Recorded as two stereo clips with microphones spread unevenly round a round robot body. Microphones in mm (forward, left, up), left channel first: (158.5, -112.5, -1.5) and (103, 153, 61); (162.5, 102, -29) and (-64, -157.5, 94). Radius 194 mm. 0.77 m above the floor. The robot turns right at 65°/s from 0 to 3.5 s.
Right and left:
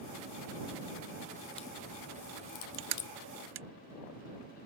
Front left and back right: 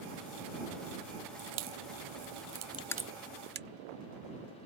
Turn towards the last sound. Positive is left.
turn(degrees=160)